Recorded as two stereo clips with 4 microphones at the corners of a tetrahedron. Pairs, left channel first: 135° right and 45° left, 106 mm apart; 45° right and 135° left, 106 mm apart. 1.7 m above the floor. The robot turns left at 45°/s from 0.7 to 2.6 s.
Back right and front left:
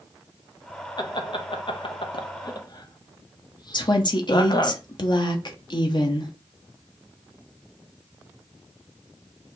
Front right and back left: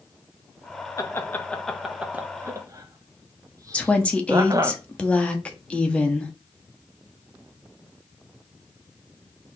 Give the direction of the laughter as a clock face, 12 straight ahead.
3 o'clock.